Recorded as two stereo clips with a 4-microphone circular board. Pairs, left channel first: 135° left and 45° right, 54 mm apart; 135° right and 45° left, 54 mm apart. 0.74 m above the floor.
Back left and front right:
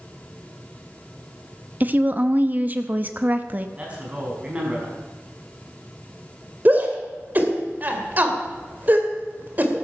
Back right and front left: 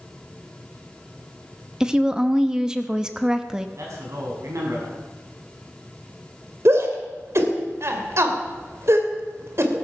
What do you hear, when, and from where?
1.8 s a woman speaking: 25° right, 0.9 m
3.8 s a man speaking: 25° left, 5 m
6.7 s a shout: 10° left, 2.5 m